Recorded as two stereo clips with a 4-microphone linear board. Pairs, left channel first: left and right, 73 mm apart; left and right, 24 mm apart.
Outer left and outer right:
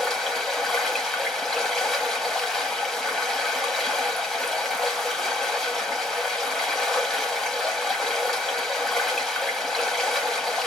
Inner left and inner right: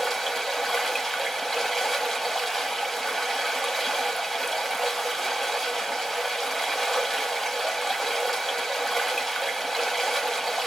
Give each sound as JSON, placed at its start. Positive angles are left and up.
{"t": 0.0, "sound": "running water", "side_deg": 5, "distance_m": 1.0}